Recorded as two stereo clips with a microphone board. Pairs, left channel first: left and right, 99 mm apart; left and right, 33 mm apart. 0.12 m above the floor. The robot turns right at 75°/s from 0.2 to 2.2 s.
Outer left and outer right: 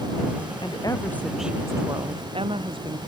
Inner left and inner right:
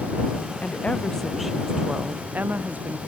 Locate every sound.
0.6 s a woman speaking: 125° left; by 3.0 s 115° right